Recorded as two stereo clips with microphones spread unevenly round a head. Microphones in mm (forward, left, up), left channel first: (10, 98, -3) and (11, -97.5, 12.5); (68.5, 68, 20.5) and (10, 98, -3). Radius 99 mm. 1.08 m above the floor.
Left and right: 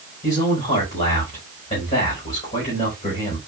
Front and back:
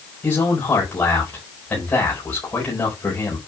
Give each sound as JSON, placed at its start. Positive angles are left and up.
{"t": 0.2, "sound": "a man speaking", "azimuth_deg": 30, "distance_m": 5.0}